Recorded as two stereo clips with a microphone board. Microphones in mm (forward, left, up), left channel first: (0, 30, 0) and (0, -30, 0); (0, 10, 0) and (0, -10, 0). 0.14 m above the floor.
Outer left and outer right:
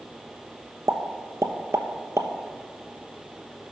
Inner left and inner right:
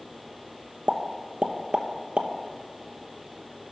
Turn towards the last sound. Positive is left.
turn(degrees=-55)  # may be behind; listen again after turning